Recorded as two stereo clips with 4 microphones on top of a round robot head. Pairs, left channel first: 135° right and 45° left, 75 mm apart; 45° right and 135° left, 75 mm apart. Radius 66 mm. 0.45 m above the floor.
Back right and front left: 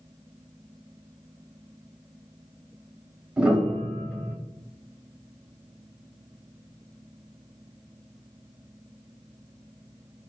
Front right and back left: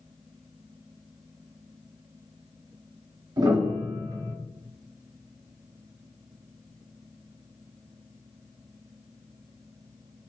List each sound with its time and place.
3.4 s a piano: 120° left, 0.9 m